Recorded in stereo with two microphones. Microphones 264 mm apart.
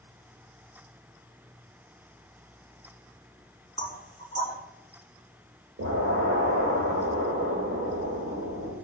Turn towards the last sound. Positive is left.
turn(degrees=-80)